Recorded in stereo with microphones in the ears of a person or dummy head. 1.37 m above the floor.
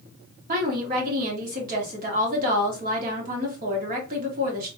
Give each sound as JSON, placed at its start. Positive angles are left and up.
{"t": 0.5, "sound": "a woman speaking", "side_deg": -45, "distance_m": 1.3}